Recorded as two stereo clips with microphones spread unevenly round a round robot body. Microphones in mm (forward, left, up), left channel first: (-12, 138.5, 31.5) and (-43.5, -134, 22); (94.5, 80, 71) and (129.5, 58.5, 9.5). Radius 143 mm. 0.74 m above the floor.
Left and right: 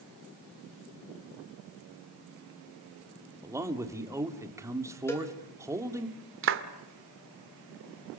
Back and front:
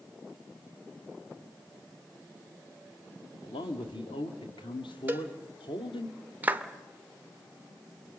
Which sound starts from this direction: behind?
A man speaking, at 3.4 s.